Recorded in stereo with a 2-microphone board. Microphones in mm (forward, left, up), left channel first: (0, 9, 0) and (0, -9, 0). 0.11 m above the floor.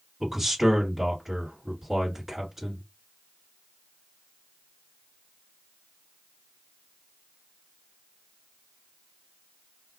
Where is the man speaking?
10° right (ahead or behind), 1.9 m.